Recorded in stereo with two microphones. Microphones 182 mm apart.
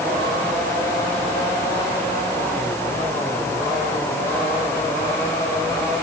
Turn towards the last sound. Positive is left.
No sound to turn to.